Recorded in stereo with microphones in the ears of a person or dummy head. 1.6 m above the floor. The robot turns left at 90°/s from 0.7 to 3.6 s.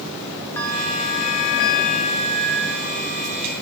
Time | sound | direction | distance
0.6 | a bell | 165° left | 1.1 m